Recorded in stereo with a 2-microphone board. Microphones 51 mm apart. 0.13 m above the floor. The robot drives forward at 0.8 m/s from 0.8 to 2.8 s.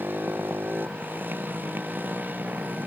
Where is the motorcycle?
35° right (ahead or behind).